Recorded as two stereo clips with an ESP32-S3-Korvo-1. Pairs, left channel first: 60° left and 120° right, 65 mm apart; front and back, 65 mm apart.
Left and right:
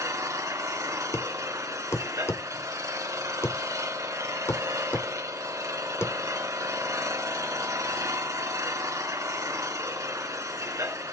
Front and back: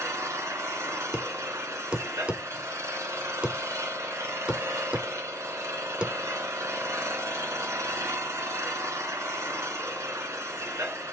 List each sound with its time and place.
0.0 s an engine running: 145° right, 2 m
1.1 s a thud: 110° left, 1.0 m